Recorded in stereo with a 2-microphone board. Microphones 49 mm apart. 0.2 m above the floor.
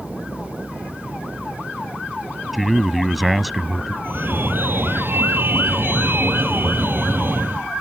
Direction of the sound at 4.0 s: 50° right (ahead or behind).